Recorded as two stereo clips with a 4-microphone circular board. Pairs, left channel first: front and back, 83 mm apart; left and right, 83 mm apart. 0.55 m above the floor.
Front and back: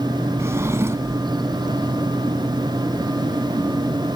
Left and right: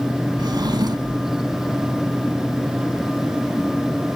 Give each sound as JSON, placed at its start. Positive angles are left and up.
{"t": 0.4, "sound": "a drawer", "azimuth_deg": -120, "distance_m": 1.2}